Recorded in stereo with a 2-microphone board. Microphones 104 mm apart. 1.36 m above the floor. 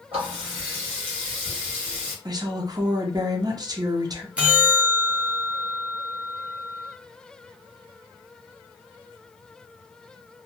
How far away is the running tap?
About 1.2 m.